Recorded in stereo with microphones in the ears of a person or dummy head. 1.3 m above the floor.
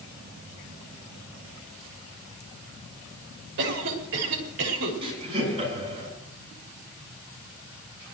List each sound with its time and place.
3.6 s a cough: 65° right (ahead or behind), 4 m
5.0 s laughter: 35° right (ahead or behind), 9.5 m